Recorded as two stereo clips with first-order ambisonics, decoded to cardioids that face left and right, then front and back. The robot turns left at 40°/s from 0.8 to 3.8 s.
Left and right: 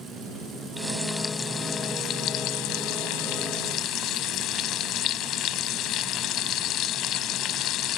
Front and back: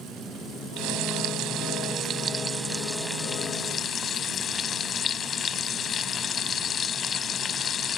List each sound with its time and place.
0.8 s frying: straight behind; by 8.0 s 60° left